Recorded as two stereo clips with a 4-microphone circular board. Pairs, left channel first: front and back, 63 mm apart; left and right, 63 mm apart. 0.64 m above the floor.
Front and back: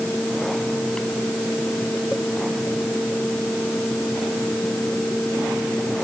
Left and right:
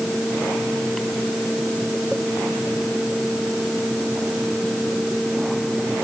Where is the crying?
I don't hear crying.